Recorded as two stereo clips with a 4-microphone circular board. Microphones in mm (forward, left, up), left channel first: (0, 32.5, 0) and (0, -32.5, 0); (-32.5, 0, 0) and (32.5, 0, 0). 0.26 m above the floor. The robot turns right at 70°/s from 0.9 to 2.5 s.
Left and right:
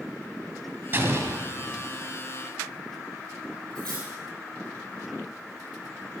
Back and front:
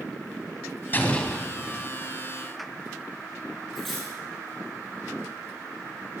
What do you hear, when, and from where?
0.9 s an explosion: 135° right, 1.5 m; by 1.9 s 65° right, 1.5 m
3.8 s cutlery clinking: 90° right, 5.5 m